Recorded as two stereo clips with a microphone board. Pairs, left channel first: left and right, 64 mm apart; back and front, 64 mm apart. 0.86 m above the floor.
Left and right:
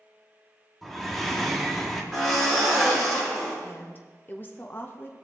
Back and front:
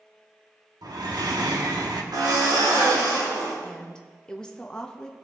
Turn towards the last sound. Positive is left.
turn(degrees=110)